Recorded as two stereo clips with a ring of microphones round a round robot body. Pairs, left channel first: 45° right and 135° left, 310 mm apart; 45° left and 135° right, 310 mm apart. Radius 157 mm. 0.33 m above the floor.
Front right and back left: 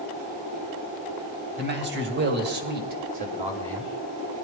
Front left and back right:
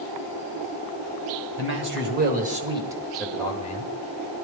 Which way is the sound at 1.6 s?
175° right.